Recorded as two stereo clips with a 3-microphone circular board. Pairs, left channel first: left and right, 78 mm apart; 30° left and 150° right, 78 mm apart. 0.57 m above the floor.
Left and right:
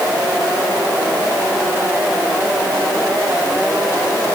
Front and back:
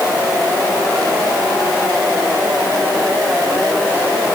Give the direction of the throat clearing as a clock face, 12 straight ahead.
No throat clearing in this recording.